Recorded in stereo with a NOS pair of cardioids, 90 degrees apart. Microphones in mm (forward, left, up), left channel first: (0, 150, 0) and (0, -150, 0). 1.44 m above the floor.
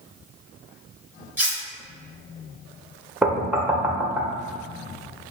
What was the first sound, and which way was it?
Cutlery clinking, 5° right.